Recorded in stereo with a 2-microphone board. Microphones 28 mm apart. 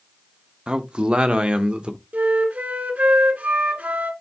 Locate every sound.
0.7 s a man speaking: 35° right (ahead or behind), 0.9 m; by 2.0 s 40° right (ahead or behind), 1.4 m
2.1 s a flute: 75° right (ahead or behind), 1.7 m